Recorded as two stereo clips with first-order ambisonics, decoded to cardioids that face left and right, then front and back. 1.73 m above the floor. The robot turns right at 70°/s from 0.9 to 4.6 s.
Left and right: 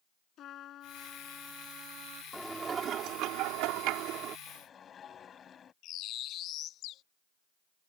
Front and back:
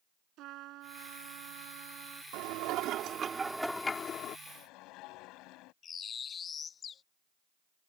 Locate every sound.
0.4 s a trumpet: 140° left; by 2.2 s 125° right
2.3 s dishes clattering: straight behind; by 4.4 s 40° right
4.5 s a whoosh: 15° left; by 5.7 s 25° left
5.8 s a bird: 60° left